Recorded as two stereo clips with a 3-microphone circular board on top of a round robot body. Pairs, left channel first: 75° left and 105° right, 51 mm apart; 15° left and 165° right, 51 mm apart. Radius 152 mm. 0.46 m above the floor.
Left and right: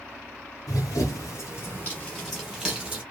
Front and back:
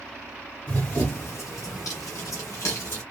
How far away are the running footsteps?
About 0.8 m.